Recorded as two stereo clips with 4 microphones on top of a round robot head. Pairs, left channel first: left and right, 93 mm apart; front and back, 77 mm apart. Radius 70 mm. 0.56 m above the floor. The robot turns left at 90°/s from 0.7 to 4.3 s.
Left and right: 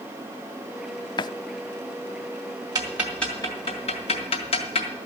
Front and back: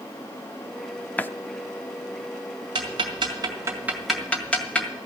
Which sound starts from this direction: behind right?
Ticking, at 2.8 s.